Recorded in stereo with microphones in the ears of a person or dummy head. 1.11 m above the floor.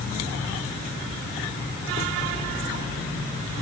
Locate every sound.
Only background noise.